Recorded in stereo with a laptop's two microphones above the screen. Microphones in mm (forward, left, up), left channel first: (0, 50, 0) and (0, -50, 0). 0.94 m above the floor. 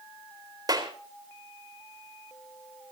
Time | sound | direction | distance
0.7 | a clap | 40° right (ahead or behind) | 4 m